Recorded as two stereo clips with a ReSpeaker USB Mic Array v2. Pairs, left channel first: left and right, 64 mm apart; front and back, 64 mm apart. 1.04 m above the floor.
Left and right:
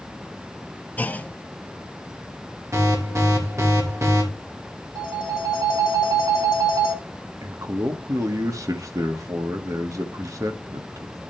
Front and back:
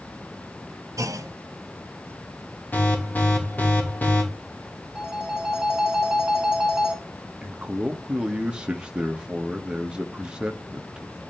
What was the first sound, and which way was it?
A clunk, 150° left.